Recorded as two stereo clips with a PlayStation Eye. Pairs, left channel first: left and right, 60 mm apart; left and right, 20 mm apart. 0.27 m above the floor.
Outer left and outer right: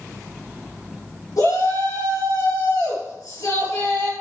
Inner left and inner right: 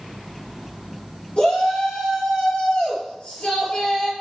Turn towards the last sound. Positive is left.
turn(degrees=70)  # may be behind; listen again after turning